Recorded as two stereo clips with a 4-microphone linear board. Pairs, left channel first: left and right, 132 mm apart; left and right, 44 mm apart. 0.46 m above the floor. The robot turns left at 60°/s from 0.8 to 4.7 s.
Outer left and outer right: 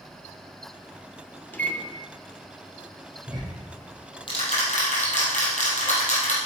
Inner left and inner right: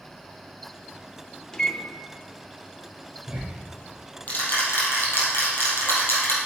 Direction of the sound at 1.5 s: 15° left (ahead or behind).